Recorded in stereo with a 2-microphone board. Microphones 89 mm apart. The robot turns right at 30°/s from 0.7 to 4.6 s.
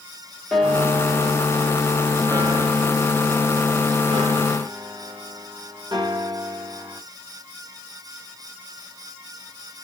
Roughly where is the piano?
Behind.